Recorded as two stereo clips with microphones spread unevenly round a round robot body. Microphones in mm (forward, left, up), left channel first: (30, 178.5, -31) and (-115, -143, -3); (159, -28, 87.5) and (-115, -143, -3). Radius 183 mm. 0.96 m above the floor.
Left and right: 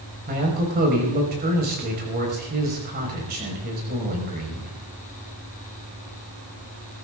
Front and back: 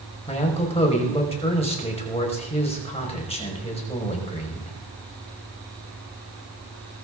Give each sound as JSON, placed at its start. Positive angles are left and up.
{"t": 0.3, "sound": "a man speaking", "azimuth_deg": -50, "distance_m": 5.0}